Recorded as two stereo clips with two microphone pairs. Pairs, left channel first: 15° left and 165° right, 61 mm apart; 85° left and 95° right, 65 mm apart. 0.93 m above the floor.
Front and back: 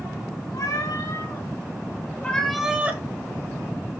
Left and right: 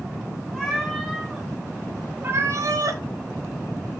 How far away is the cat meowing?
About 2.5 m.